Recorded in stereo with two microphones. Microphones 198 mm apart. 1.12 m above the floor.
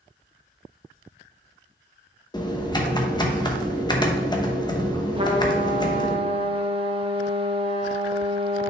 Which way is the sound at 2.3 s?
20° left (ahead or behind).